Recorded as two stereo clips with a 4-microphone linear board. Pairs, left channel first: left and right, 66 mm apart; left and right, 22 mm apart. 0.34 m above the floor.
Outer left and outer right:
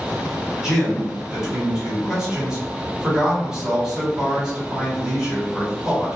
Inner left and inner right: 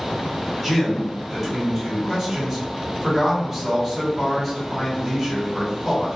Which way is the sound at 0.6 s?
10° right (ahead or behind).